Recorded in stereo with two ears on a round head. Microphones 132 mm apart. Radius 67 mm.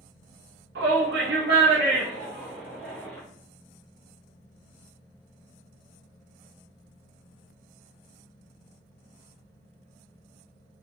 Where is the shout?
75° right (ahead or behind), 0.9 m; by 3.2 s 10° left (ahead or behind), 1.0 m.